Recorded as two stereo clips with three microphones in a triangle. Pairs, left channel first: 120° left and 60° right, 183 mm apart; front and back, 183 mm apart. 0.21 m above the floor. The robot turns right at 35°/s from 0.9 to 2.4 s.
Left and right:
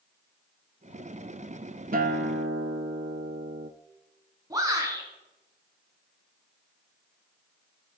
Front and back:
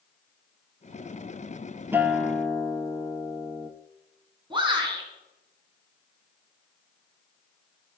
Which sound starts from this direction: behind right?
A shout, at 4.5 s.